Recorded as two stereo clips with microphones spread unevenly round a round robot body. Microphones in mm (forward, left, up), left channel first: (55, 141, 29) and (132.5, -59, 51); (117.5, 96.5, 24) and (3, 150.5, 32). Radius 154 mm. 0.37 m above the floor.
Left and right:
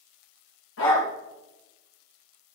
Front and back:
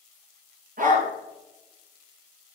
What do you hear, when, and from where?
0.8 s a dog barking: 160° left, 3.5 m